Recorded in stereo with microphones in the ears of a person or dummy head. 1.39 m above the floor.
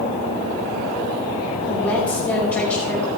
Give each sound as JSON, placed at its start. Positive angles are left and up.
{"t": 1.7, "sound": "a woman speaking", "side_deg": 15, "distance_m": 4.0}